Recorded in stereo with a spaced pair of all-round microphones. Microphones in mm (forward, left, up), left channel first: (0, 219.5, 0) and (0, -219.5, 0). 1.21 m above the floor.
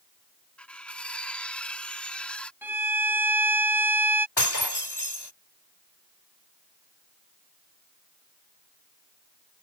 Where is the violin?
5° right (ahead or behind).